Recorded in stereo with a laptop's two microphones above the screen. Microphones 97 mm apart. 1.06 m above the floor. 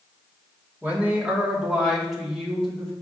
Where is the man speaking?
20° right (ahead or behind), 2 m; by 2.9 s 5° left (ahead or behind), 3 m.